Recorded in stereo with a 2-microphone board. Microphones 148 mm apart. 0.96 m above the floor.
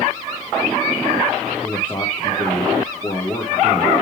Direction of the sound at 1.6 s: 15° left (ahead or behind).